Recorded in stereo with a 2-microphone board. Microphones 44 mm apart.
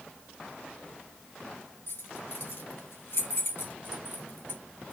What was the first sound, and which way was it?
Keys jangling, 75° left (ahead or behind).